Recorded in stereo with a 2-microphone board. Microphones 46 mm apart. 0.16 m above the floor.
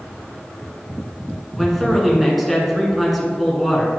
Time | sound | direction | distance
1.6 | a man speaking | centre (ahead or behind) | 1.5 m